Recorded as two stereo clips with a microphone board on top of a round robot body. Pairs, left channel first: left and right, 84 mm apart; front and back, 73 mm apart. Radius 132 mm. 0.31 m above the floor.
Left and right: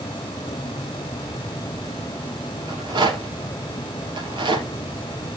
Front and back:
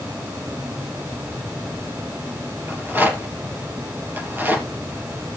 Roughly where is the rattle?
Behind right.